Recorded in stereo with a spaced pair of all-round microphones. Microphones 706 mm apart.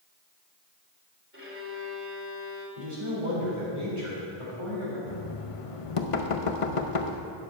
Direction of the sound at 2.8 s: 45° right (ahead or behind).